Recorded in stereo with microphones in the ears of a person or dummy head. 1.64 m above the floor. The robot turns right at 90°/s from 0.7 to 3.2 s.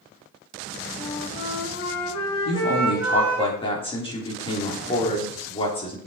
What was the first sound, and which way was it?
A flute, 10° left.